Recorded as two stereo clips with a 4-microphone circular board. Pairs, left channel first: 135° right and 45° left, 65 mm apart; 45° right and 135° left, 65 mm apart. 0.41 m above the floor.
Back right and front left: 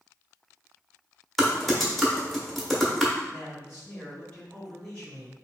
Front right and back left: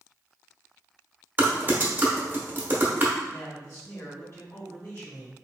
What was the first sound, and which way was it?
Typing on a keyboard, 135° left.